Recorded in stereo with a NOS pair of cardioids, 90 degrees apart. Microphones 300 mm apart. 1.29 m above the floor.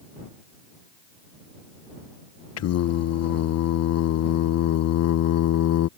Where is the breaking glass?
No breaking glass in this recording.